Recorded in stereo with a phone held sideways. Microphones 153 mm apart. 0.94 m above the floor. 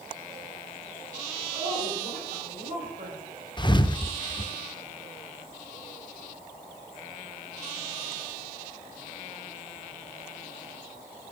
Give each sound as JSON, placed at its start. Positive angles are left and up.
{"t": 1.5, "sound": "a woman speaking", "side_deg": -75, "distance_m": 4.0}
{"t": 3.6, "sound": "a thud", "side_deg": 30, "distance_m": 0.6}